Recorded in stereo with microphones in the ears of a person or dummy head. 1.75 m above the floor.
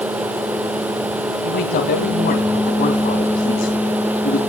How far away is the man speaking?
About 2.5 m.